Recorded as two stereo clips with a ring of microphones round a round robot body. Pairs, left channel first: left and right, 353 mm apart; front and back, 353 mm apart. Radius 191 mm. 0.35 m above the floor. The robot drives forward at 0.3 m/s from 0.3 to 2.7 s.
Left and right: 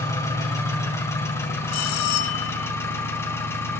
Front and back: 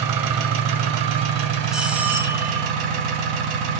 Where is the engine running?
170° left, 2 m; by 3.8 s 175° left, 2.5 m.